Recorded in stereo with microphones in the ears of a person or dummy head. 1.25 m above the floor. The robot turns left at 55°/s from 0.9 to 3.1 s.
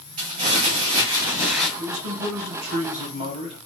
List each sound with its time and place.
0.2 s crumpling: 135° right, 1.7 m; by 1.7 s 175° right, 1.7 m
1.8 s a man speaking: 70° right, 1.4 m; by 3.6 s 140° right, 1.4 m